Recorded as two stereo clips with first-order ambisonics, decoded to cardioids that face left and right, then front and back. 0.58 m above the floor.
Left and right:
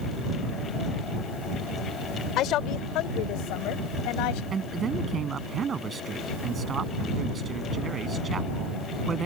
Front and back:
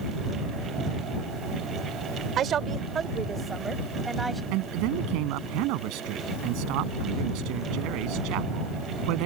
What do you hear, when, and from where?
2.4 s a woman speaking: 130° left; by 4.4 s 95° left
4.5 s a man speaking: 160° right